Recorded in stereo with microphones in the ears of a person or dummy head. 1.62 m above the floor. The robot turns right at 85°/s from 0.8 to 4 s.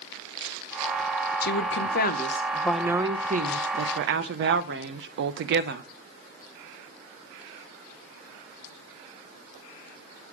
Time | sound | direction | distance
1.4 | a woman speaking | 65° left | 1.1 m